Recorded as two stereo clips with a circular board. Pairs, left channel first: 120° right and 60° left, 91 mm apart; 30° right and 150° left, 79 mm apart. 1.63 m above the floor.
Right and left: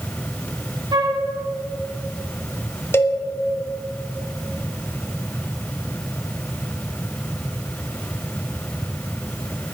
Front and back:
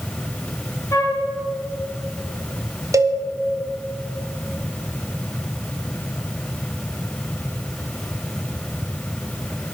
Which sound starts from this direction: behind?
A cowbell, at 2.9 s.